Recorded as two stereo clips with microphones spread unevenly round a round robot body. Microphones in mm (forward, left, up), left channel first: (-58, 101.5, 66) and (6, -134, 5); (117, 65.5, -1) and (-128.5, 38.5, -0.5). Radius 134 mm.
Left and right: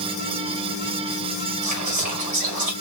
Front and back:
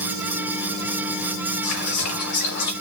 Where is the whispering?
35° right, 2.5 m.